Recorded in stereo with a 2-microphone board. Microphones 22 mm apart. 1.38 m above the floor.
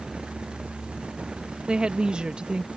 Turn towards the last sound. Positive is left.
turn(degrees=-55)  # may be behind; listen again after turning